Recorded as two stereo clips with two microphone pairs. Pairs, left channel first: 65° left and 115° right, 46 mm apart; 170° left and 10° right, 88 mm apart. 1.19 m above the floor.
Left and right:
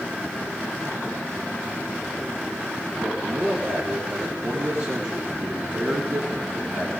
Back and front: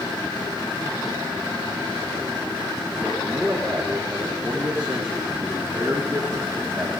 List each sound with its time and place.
3.0 s a man speaking: 85° right, 3.5 m